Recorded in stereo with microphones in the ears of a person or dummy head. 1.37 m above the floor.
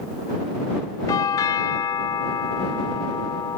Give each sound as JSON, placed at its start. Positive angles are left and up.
{"t": 1.1, "sound": "a doorbell", "side_deg": 25}